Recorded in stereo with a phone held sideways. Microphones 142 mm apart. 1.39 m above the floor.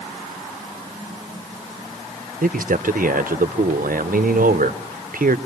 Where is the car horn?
No car horn in this recording.